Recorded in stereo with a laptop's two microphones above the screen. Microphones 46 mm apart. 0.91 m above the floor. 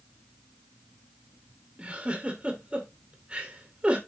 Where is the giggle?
25° right (ahead or behind), 1.9 m.